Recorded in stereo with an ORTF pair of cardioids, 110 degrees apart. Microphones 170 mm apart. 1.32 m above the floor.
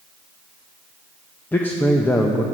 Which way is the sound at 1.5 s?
10° left.